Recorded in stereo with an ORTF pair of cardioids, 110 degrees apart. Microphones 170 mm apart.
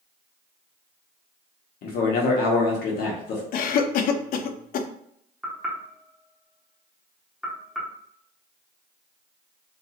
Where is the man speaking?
70° left, 1.1 m.